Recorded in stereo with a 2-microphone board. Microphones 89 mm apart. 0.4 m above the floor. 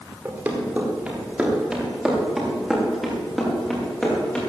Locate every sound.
0.2 s running footsteps: 20° right (ahead or behind), 5.5 m; by 4.4 s 15° left (ahead or behind), 7.5 m